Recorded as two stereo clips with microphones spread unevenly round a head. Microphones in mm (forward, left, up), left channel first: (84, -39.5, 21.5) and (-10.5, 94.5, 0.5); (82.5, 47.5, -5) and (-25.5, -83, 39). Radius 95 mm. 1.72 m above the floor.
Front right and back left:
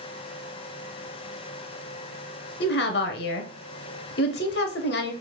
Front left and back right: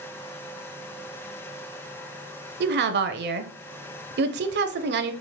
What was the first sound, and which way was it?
A woman speaking, 100° right.